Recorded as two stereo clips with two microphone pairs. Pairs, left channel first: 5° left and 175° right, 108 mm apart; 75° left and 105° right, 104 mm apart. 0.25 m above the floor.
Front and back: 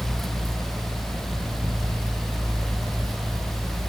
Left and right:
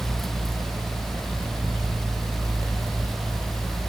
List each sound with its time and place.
Only background noise.